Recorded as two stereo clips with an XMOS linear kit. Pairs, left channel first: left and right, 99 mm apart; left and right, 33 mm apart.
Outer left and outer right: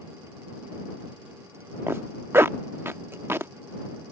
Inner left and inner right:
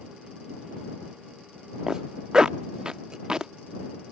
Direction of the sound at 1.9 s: 25° right (ahead or behind).